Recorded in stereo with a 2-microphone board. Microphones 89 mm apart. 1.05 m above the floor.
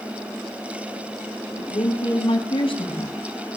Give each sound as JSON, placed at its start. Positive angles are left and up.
{"t": 1.6, "sound": "a woman speaking", "side_deg": 85, "distance_m": 8.0}